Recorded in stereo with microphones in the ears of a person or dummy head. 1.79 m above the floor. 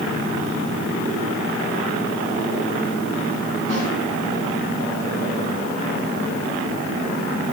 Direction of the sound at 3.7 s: 45° left (ahead or behind).